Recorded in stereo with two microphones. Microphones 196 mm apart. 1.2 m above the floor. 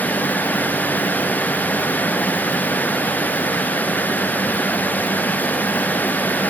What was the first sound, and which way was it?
Only background noise.